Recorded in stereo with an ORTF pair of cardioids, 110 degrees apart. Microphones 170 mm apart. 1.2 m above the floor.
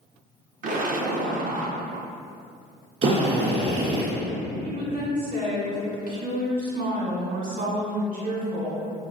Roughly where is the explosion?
Ahead right.